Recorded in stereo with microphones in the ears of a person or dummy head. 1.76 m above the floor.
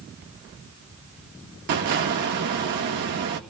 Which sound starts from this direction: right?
An explosion, at 1.7 s.